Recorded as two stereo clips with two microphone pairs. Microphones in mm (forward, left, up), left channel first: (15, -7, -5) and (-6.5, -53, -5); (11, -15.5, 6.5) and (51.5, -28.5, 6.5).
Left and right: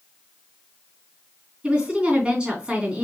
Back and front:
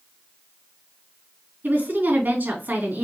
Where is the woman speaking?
50° right, 3 m.